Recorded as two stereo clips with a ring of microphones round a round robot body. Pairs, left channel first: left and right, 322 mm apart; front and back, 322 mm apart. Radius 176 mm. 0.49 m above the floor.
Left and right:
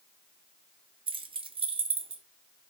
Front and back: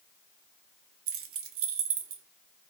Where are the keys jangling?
160° right, 0.7 m.